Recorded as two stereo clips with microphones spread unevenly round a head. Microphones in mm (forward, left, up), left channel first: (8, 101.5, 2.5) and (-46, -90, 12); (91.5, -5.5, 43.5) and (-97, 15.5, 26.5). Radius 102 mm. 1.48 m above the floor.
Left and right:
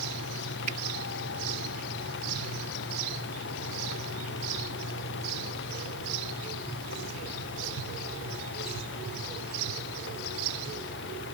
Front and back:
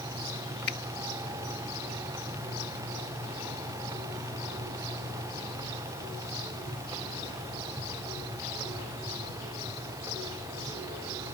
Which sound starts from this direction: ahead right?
A finger snap, at 0.7 s.